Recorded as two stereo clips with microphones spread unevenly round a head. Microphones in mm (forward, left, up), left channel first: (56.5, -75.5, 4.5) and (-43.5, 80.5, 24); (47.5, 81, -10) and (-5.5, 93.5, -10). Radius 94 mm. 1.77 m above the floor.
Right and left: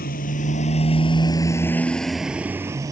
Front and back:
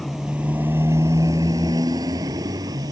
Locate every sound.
0.0 s a motorcycle: 105° right; by 2.9 s 165° right